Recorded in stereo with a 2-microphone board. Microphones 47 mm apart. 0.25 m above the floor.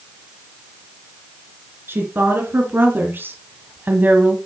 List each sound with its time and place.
1.9 s a woman speaking: 50° right (ahead or behind), 3 m; by 4.3 s 40° right (ahead or behind), 1.2 m